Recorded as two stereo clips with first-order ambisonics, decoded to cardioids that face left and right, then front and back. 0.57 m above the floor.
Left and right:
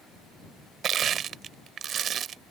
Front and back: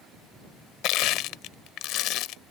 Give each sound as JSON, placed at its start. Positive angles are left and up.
{"t": 0.8, "sound": "crushing", "azimuth_deg": -35}